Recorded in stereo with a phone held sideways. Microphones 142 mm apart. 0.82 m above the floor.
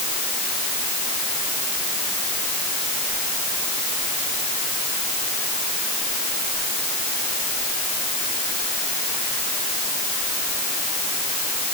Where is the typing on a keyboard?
I don't hear typing on a keyboard.